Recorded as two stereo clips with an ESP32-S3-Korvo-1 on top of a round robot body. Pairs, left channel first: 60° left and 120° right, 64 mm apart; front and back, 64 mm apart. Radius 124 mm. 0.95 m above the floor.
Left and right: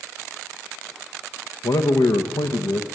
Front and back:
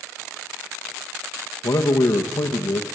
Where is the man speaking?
30° left, 1.0 m.